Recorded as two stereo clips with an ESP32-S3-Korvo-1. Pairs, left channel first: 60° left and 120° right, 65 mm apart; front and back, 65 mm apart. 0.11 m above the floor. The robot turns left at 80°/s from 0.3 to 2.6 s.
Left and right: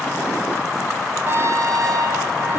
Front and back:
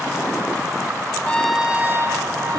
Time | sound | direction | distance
1.2 | a trumpet | 70° right | 0.9 m